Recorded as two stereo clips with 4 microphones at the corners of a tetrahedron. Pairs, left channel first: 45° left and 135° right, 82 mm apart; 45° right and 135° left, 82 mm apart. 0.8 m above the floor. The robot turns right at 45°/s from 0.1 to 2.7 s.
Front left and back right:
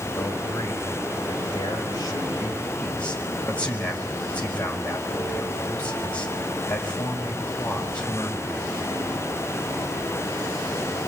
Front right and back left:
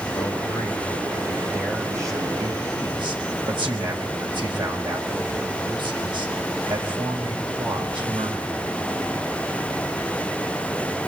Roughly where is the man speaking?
Ahead.